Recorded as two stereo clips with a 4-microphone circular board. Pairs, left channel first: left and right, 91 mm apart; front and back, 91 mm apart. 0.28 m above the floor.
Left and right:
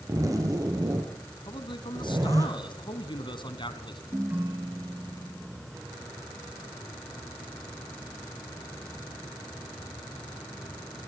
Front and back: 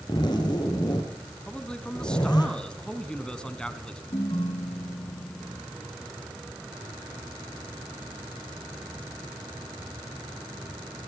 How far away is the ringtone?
About 2.5 m.